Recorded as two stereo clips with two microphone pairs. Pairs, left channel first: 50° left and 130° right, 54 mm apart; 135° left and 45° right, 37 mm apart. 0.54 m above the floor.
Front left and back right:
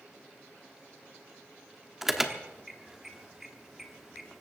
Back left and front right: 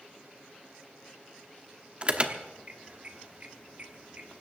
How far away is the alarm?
About 1.1 m.